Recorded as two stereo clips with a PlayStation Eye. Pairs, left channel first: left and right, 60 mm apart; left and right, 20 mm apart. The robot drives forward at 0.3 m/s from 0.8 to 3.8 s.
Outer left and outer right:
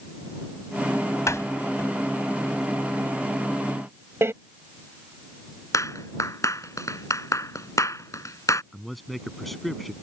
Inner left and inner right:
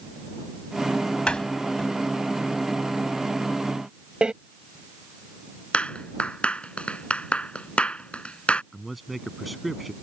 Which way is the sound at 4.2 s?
45° right (ahead or behind).